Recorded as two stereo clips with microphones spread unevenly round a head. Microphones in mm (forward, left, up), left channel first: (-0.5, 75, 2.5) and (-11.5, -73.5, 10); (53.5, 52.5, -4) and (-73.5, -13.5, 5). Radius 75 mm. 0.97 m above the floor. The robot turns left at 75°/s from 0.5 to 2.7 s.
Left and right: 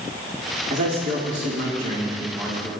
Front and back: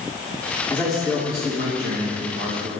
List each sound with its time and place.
0.7 s a man speaking: 45° right, 2.5 m; by 2.7 s 165° left, 2.5 m